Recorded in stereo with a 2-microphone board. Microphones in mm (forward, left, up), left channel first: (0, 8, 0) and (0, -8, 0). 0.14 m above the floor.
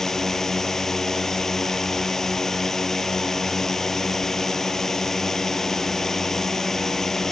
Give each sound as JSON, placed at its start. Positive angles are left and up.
{"t": 0.0, "sound": "a drone", "side_deg": 20}